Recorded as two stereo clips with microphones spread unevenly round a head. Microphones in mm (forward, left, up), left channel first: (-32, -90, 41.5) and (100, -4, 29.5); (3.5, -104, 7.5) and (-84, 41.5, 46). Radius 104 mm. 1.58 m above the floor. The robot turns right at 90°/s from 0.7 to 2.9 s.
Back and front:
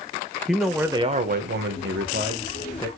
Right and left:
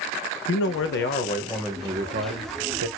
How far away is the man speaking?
About 0.8 m.